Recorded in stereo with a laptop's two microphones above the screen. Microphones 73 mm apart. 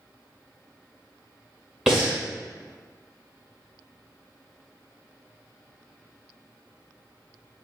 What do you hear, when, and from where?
1.9 s breathing: 10° right (ahead or behind), 1.7 m